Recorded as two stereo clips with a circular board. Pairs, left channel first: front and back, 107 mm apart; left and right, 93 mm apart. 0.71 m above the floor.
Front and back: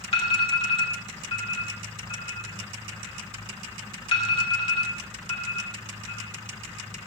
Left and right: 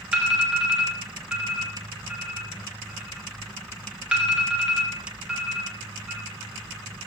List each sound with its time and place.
0.1 s an alarm: 10° right, 2.0 m